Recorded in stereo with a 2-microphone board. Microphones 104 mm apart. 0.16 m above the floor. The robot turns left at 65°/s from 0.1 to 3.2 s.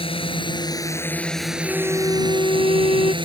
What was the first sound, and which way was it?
A drone, 85° left.